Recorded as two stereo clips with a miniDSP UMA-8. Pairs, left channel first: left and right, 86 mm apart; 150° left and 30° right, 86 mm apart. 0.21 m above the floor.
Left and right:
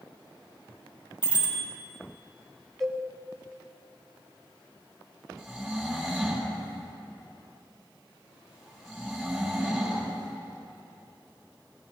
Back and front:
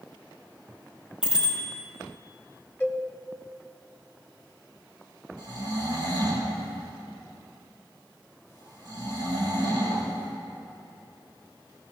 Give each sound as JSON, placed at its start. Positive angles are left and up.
{"t": 1.2, "sound": "a bicycle bell", "azimuth_deg": 50, "distance_m": 5.0}
{"t": 2.8, "sound": "a cowbell", "azimuth_deg": 175, "distance_m": 1.3}
{"t": 5.4, "sound": "snoring", "azimuth_deg": 5, "distance_m": 6.5}